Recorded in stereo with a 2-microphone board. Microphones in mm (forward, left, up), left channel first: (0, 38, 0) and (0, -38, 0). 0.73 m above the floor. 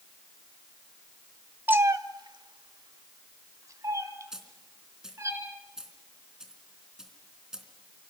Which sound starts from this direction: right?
A cat meowing, at 1.7 s.